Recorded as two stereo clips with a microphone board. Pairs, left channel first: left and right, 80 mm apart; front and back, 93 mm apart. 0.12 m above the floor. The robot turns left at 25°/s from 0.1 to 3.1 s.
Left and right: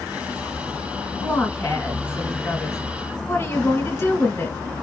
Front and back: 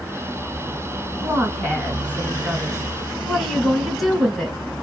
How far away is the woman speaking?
About 1.9 m.